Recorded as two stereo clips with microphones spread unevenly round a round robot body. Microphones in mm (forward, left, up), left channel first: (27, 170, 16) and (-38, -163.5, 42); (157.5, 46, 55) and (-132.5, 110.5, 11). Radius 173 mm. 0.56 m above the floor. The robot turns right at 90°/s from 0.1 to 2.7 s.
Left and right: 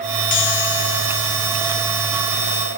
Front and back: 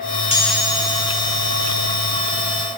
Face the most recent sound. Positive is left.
turn(degrees=-85)